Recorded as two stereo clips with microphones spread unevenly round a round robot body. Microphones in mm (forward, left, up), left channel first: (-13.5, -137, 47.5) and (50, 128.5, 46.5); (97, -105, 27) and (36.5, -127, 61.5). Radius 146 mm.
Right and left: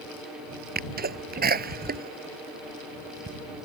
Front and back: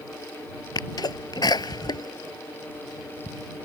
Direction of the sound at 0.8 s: 20° left.